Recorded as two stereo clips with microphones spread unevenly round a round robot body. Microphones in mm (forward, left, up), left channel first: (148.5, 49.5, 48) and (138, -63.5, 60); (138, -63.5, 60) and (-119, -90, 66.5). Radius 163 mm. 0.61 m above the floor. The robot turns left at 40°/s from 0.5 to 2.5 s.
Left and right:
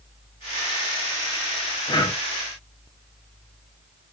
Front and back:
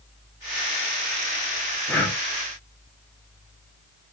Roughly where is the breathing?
Left.